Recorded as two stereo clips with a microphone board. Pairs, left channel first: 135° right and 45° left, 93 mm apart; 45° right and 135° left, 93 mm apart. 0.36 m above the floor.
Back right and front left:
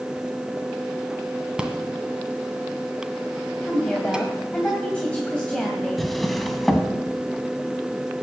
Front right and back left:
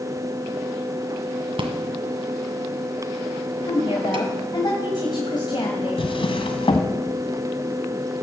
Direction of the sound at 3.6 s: 60° right.